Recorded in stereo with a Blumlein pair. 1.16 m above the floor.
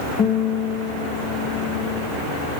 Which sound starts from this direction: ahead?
A guitar, at 0.2 s.